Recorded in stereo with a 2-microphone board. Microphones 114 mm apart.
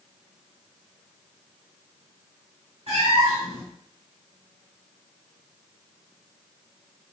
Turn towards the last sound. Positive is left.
turn(degrees=-65)  # may be behind; listen again after turning